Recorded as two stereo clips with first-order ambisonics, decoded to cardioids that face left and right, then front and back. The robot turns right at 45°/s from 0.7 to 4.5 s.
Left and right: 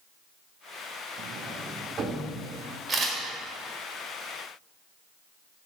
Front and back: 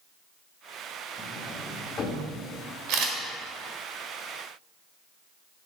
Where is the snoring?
No snoring in this recording.